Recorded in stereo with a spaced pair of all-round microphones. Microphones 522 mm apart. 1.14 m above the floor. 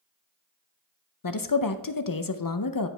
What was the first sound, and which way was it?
A woman speaking, 40° left (ahead or behind).